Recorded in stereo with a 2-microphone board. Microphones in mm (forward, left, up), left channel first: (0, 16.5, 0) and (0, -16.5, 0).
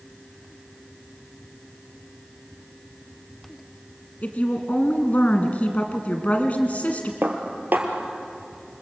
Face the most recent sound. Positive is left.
turn(degrees=-70)  # may be behind; listen again after turning